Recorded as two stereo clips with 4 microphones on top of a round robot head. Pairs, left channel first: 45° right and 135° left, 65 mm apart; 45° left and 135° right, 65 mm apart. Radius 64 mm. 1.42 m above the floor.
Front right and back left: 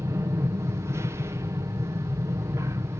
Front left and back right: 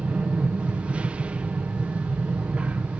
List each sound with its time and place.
0.0 s an aircraft: 160° left